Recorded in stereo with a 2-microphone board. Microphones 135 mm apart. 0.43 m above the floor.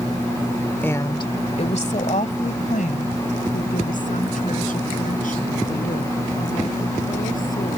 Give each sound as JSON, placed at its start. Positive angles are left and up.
{"t": 0.8, "sound": "a woman speaking", "side_deg": 15}